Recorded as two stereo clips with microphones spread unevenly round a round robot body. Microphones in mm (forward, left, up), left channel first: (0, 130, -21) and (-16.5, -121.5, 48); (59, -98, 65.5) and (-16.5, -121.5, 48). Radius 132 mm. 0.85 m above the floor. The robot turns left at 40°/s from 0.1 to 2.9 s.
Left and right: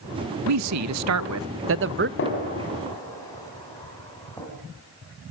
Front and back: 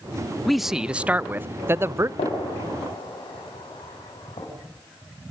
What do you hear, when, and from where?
0.5 s a man speaking: 85° right, 0.5 m; by 2.1 s 150° right, 0.5 m
2.2 s a gunshot: 35° left, 4.5 m; by 4.5 s 5° left, 4.5 m